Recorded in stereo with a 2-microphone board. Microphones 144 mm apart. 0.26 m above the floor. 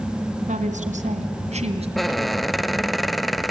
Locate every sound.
0.5 s a woman speaking: 60° right (ahead or behind), 3 m; by 1.9 s 45° right (ahead or behind), 2.5 m
2.0 s a squeak: centre (ahead or behind), 0.5 m